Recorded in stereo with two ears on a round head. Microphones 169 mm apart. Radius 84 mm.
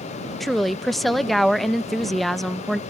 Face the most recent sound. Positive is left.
turn(degrees=0)  # may be behind; listen again after turning